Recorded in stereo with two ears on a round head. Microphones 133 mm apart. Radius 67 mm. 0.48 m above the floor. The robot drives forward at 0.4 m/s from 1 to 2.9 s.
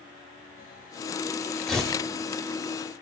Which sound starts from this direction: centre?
Tearing paper, at 1.7 s.